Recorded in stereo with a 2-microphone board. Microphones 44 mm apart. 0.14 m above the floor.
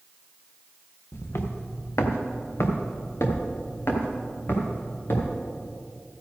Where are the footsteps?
65° left (ahead or behind), 1.6 m; by 5.4 s 55° left (ahead or behind), 4 m.